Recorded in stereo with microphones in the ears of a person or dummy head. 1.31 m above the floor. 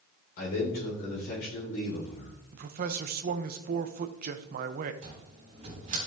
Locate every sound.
0.4 s a man speaking: 50° left (ahead or behind), 4.5 m
2.5 s a man speaking: 45° right (ahead or behind), 0.8 m
5.0 s a cupboard door: 40° right (ahead or behind), 3.5 m